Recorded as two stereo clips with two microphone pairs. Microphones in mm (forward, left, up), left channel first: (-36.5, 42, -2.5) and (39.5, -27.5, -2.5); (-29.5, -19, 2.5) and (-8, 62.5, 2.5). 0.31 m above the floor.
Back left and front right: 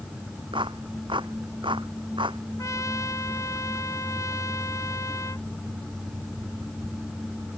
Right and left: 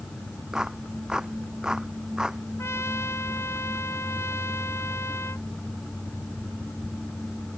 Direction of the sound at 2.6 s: 165° right.